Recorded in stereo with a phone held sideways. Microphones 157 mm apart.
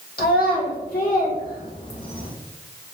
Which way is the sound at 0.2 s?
85° left.